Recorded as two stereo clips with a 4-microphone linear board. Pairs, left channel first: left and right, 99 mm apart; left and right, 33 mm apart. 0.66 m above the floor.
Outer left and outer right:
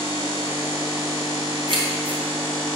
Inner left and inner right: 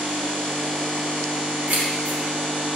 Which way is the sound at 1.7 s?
55° right (ahead or behind).